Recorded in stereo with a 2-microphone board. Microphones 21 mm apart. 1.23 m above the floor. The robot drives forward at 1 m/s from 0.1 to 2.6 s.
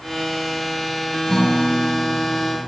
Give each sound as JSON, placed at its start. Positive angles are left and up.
{"t": 1.3, "sound": "a guitar", "side_deg": 35, "distance_m": 4.5}